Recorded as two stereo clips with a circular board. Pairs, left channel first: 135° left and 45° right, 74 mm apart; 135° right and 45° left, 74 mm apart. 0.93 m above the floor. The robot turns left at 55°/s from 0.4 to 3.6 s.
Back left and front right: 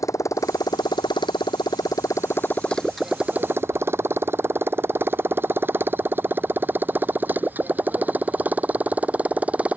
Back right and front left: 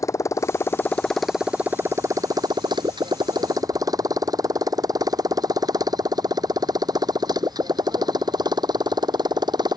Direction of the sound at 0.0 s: Straight behind.